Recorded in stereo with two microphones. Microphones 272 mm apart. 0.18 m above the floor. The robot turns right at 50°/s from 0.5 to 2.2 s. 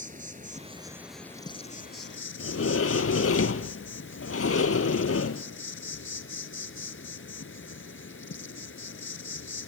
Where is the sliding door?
55° left (ahead or behind), 0.8 m.